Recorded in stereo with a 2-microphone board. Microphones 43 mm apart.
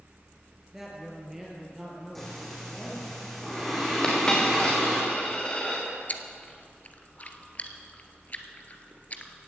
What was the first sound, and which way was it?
A woman speaking, 5° right (ahead or behind).